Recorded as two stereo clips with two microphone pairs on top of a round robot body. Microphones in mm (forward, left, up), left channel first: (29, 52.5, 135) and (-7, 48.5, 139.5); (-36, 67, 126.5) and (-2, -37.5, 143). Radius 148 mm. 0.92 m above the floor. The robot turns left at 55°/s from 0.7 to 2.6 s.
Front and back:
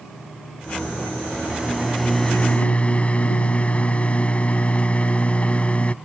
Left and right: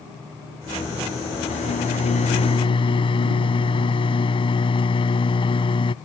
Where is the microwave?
125° left; by 6.0 s 65° left.